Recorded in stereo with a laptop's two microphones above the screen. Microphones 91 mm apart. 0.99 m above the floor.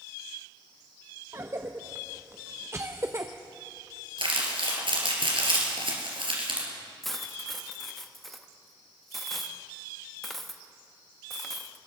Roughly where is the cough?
Right.